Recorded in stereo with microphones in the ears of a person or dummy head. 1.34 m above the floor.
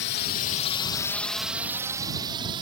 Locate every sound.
0.0 s a drone: 60° left (ahead or behind); by 2.6 s 25° right (ahead or behind)